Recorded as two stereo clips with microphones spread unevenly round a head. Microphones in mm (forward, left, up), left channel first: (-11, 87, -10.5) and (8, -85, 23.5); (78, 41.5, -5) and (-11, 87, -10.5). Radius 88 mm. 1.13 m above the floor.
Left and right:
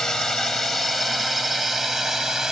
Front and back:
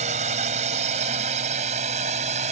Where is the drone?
175° right; by 2.5 s 170° right.